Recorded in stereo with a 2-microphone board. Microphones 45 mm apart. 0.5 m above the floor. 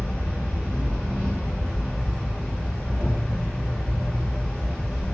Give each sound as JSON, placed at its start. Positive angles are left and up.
{"t": 0.0, "sound": "an insect", "side_deg": 0, "distance_m": 1.6}